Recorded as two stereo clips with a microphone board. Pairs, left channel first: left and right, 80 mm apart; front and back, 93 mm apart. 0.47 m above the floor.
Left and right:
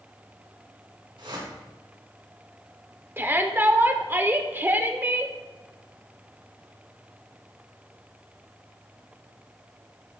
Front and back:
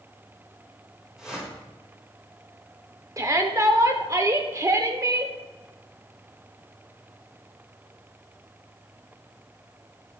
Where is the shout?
140° right, 0.9 m.